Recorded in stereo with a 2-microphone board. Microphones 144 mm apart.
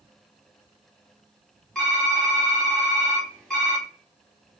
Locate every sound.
1.8 s typing on a keyboard: 5° left (ahead or behind), 1.8 m